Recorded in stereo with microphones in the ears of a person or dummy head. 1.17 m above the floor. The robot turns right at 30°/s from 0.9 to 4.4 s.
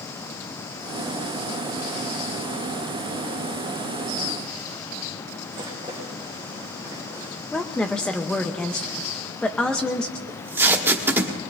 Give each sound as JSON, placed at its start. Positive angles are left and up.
{"t": 5.5, "sound": "a rattle", "side_deg": -15, "distance_m": 5.0}
{"t": 7.5, "sound": "a woman speaking", "side_deg": 10, "distance_m": 1.1}
{"t": 10.3, "sound": "tape being pulled", "side_deg": -15, "distance_m": 1.6}